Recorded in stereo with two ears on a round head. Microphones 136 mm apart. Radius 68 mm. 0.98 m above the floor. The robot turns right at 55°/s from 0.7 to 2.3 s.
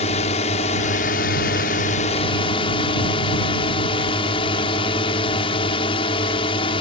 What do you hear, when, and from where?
0.0 s a drone: 50° left; by 6.8 s 140° left